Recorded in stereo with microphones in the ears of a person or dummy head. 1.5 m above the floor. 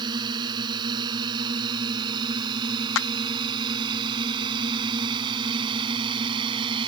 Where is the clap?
75° left (ahead or behind).